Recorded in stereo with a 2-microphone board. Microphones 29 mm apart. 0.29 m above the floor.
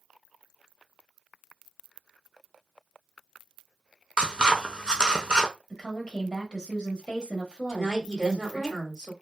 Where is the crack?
I don't hear a crack.